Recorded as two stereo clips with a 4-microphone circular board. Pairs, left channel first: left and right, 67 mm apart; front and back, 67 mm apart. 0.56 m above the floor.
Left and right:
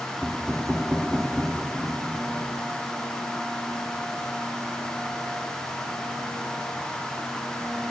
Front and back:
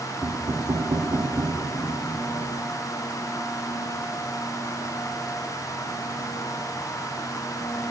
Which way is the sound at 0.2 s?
175° right.